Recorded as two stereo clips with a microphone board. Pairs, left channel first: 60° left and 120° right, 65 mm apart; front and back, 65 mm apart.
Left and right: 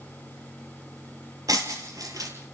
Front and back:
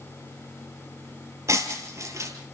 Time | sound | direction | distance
1.5 | breaking glass | 140° right | 3.5 m